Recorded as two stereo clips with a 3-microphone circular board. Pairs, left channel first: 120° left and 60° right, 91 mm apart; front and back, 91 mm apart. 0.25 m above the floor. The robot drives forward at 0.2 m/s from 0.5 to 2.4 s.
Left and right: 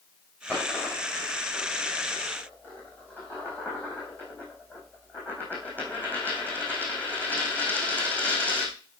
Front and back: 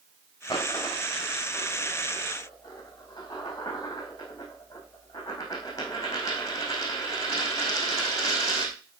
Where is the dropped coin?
45° left, 4.5 m; by 8.8 s 50° left, 4.5 m.